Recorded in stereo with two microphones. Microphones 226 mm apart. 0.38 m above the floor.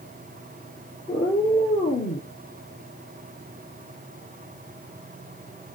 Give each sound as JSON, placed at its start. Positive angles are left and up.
{"t": 1.1, "sound": "a cat meowing", "side_deg": 40, "distance_m": 2.5}